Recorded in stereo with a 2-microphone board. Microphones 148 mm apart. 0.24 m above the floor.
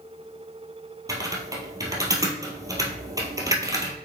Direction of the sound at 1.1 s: 20° right (ahead or behind).